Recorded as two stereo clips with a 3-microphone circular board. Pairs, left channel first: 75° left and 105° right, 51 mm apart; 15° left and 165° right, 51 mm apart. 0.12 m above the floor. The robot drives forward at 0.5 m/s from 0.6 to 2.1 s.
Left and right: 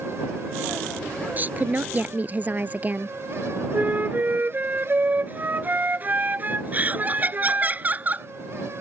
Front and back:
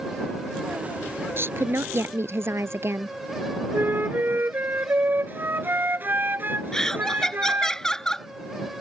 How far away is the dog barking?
I don't hear a dog barking.